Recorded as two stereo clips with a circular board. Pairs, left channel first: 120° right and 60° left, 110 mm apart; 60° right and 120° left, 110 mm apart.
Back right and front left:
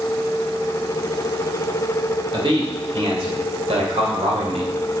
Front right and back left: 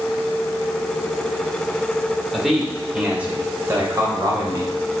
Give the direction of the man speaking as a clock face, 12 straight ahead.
11 o'clock.